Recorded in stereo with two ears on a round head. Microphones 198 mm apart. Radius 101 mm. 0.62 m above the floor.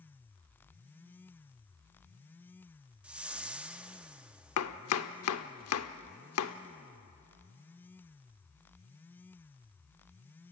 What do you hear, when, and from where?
3.0 s a whoosh: 5° right (ahead or behind), 0.7 m
4.6 s chopping: 70° left (ahead or behind), 1.0 m